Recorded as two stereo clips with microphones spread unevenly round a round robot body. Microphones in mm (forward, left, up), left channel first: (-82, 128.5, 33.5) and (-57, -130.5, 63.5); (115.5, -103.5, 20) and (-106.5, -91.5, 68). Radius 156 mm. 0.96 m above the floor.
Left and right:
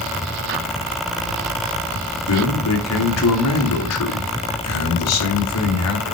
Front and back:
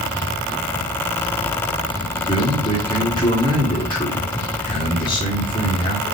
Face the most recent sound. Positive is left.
turn(degrees=65)